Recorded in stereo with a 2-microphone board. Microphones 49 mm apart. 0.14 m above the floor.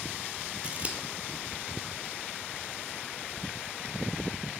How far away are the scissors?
About 0.9 m.